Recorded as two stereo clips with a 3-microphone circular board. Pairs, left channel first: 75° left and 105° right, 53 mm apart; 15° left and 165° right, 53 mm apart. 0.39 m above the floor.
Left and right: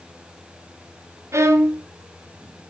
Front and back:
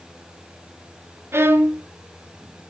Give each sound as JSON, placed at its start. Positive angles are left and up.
{"t": 1.3, "sound": "a violin", "azimuth_deg": -130, "distance_m": 1.4}